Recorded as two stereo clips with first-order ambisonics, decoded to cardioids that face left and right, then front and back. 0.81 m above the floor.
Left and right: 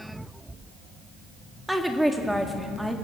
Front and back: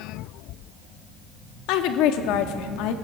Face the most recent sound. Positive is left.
turn(degrees=0)